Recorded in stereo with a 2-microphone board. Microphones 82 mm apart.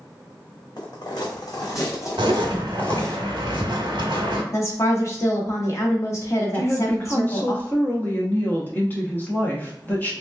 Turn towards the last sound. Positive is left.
turn(degrees=20)  # may be behind; listen again after turning